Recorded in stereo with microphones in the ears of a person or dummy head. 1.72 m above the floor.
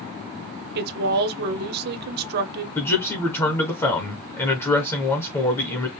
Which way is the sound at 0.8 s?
60° right (ahead or behind).